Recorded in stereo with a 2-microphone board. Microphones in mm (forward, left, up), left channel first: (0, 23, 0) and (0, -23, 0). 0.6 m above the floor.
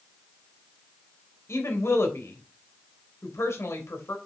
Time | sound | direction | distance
1.5 | a woman speaking | 70° left (ahead or behind) | 3 m